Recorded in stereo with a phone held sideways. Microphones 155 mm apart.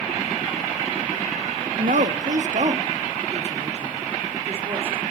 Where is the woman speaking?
70° right (ahead or behind), 1.1 m; by 5.0 s 45° right (ahead or behind), 3.5 m.